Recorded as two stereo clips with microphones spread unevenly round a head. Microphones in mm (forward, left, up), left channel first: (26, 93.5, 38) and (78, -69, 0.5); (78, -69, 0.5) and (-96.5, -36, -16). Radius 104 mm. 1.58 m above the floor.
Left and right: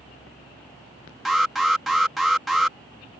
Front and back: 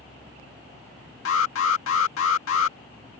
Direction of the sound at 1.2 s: 20° left.